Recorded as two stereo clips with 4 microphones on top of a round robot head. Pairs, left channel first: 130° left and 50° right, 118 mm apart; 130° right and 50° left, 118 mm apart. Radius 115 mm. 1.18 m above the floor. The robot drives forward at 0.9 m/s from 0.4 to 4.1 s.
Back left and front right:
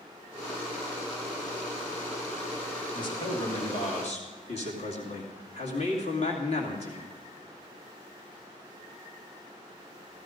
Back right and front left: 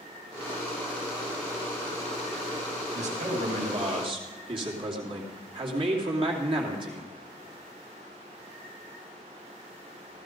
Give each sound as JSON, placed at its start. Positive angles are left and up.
{"t": 2.9, "sound": "a man speaking", "azimuth_deg": 75, "distance_m": 2.5}